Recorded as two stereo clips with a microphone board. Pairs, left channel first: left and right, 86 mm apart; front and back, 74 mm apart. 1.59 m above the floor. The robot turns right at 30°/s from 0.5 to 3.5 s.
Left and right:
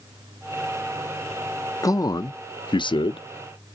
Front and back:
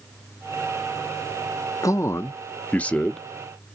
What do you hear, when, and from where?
1.8 s a man speaking: 40° left, 0.5 m; by 3.3 s 85° left, 0.5 m